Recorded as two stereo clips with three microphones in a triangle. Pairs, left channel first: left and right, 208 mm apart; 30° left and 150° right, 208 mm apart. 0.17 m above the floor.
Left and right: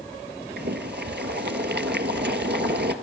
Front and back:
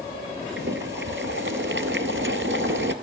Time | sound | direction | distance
0.6 | boiling | 125° right | 1.0 m